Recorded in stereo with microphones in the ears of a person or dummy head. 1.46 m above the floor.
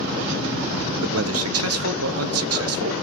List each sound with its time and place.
1.0 s a man speaking: 80° right, 1.3 m